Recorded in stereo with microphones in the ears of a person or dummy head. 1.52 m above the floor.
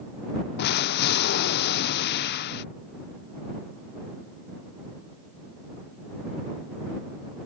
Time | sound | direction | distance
0.6 | an explosion | 60° left (ahead or behind) | ?